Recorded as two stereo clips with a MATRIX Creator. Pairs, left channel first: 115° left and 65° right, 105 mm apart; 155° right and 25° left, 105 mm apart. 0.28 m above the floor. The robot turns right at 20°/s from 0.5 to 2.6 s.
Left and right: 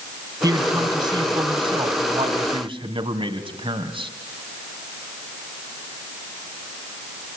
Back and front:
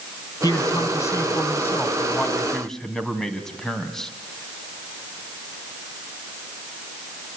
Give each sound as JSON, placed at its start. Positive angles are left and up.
{"t": 0.4, "sound": "a man speaking", "azimuth_deg": -115, "distance_m": 2.5}